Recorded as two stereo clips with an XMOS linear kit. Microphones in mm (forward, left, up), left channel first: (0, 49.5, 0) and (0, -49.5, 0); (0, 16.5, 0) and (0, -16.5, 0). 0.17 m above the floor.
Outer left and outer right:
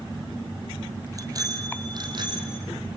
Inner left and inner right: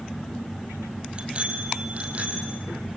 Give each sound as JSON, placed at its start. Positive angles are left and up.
{"t": 1.1, "sound": "a bicycle bell", "side_deg": -35, "distance_m": 3.0}